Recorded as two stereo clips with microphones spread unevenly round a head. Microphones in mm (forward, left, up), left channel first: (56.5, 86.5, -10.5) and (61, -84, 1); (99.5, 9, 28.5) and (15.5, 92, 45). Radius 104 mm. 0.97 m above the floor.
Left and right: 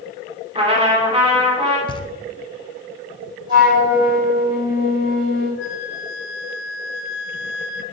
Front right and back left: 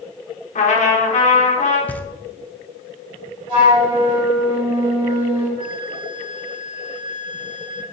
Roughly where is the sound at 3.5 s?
Behind.